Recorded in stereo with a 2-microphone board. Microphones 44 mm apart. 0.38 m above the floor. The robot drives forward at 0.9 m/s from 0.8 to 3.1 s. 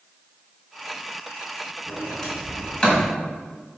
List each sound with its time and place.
1.9 s a sliding door: 20° left (ahead or behind), 3 m; by 3.1 s 30° left (ahead or behind), 1.9 m